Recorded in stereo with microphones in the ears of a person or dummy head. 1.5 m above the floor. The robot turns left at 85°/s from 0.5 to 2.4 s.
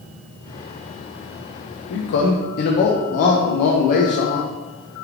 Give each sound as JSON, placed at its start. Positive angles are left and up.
{"t": 1.9, "sound": "a man speaking", "azimuth_deg": 105, "distance_m": 0.5}